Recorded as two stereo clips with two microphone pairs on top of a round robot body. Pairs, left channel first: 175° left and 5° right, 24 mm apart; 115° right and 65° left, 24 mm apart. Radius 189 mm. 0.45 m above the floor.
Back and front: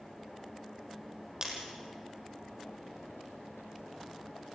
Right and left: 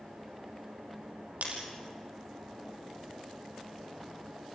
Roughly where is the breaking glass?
Ahead left.